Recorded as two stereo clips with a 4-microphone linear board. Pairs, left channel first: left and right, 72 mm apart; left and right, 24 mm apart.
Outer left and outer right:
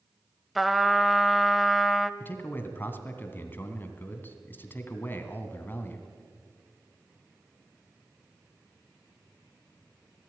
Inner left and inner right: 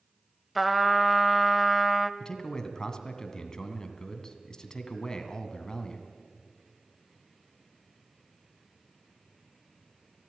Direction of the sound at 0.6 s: Centre (ahead or behind).